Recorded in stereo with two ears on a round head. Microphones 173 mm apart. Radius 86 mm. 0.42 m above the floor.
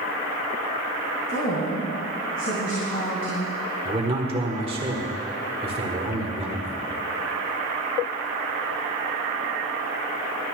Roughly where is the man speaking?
Right.